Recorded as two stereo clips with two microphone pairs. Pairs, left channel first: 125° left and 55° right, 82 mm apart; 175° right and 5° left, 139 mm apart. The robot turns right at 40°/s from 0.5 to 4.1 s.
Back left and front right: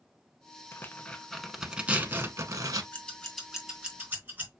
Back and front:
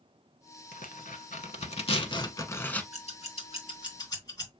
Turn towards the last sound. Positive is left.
turn(degrees=-115)